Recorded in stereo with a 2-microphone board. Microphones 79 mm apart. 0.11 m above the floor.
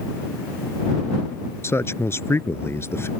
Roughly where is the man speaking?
Left.